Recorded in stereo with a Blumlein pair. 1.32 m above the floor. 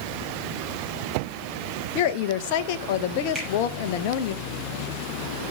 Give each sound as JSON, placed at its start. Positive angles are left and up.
{"t": 1.9, "sound": "a woman speaking", "azimuth_deg": 45, "distance_m": 1.2}
{"t": 3.4, "sound": "a finger snap", "azimuth_deg": -5, "distance_m": 9.5}